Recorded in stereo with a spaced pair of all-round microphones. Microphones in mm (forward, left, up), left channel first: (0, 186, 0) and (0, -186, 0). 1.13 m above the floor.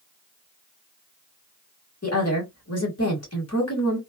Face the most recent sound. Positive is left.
turn(degrees=40)  # may be behind; listen again after turning